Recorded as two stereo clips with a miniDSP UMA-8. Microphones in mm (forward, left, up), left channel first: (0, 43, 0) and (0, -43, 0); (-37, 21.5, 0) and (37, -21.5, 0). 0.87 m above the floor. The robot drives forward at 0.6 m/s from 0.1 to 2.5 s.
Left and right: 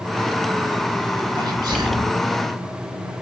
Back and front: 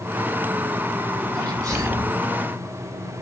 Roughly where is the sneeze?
Ahead right.